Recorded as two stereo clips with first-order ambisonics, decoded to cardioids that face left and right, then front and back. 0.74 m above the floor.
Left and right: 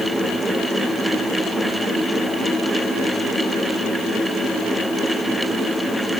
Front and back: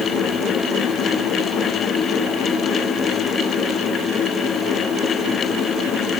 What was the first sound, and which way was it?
Only background noise.